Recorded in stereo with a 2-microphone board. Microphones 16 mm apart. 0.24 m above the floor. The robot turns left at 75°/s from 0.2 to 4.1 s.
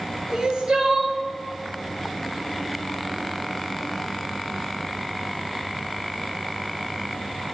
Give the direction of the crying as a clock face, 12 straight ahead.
2 o'clock.